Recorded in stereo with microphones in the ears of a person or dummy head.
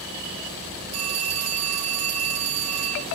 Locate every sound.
0.9 s a phone ringing: 40° right (ahead or behind), 5 m